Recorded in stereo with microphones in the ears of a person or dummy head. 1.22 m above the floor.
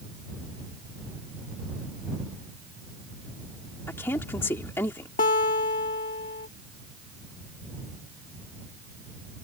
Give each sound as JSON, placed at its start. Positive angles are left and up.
{"t": 3.9, "sound": "a woman speaking", "side_deg": 10}
{"t": 5.2, "sound": "a guitar", "side_deg": 35}